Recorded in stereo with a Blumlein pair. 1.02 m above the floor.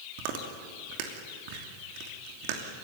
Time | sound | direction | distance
0.2 | chewing | 45° right | 2.5 m